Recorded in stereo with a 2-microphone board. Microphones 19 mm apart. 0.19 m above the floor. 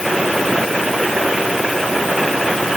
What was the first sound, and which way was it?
Only background noise.